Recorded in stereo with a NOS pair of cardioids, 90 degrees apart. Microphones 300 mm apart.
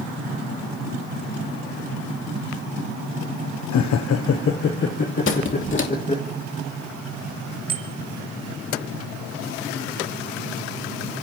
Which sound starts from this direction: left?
Laughter, at 3.7 s.